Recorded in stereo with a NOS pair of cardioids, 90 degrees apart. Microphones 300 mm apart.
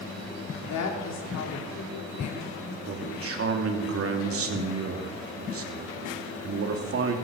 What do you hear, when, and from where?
0.7 s a woman speaking: 65° left, 3.5 m
2.9 s a man speaking: 50° right, 2.5 m